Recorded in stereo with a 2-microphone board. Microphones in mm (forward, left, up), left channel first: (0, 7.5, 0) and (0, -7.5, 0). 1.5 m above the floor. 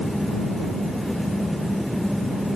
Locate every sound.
Only background noise.